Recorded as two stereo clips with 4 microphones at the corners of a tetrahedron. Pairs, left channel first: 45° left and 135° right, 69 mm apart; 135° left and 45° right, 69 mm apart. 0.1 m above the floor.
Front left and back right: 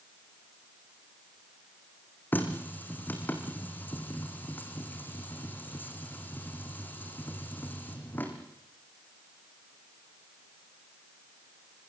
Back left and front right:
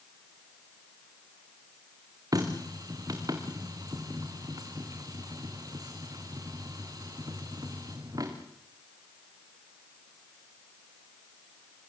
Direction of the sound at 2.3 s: 20° right.